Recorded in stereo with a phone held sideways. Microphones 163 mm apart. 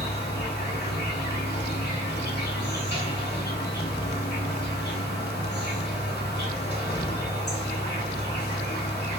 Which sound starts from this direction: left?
An insect, at 0.0 s.